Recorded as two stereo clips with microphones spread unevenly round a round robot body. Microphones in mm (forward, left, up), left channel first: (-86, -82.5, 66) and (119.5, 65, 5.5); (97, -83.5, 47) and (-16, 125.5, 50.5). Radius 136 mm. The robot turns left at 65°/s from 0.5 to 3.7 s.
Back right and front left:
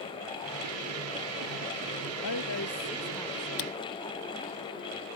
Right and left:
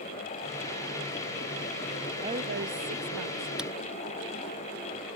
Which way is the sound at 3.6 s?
155° right.